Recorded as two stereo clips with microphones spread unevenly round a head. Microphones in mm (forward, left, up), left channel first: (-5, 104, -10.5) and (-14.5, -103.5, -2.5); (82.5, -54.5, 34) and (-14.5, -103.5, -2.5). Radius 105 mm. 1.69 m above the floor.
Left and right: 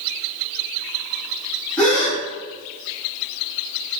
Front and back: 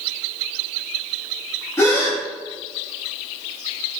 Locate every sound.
1.8 s a gasp: 5° left, 1.0 m